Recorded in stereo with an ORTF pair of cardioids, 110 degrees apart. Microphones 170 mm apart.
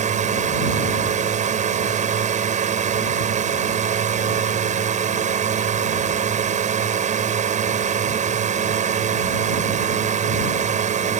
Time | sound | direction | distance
0.0 | a drone | 50° right | ?